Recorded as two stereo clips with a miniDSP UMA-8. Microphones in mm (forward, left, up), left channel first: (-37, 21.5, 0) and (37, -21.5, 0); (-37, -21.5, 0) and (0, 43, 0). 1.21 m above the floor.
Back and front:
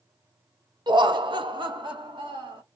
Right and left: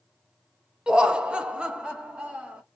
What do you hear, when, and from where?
0.9 s laughter: 15° right, 0.6 m